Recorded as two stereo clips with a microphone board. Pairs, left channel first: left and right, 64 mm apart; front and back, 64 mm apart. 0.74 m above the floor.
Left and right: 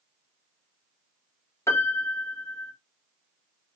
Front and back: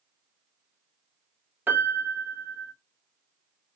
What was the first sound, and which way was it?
A piano, 120° left.